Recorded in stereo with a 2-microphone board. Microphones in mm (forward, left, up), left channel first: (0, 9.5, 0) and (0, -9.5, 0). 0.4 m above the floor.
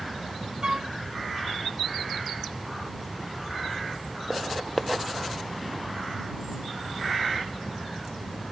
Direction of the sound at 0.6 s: 40° right (ahead or behind).